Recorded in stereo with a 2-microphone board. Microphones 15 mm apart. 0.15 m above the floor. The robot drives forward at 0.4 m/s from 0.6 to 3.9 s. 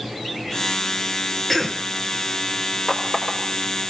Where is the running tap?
35° left (ahead or behind), 7.5 m.